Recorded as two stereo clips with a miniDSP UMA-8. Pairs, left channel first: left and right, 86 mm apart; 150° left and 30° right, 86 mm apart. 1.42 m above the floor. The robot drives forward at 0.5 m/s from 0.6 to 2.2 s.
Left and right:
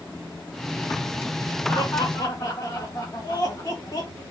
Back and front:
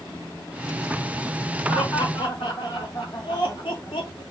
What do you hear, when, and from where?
1.7 s laughter: 125° left, 2.5 m; by 4.2 s 130° left, 2.5 m